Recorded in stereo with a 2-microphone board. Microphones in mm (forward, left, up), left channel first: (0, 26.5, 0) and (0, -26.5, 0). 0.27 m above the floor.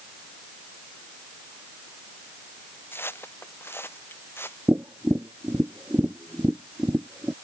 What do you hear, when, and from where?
2.9 s footsteps: 45° left (ahead or behind)
4.7 s tapping: 40° right (ahead or behind)